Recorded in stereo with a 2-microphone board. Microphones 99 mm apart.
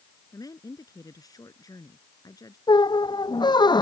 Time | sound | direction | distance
0.3 | a woman speaking | 40° left (ahead or behind) | ?
2.7 | a squeak | 50° left (ahead or behind) | ?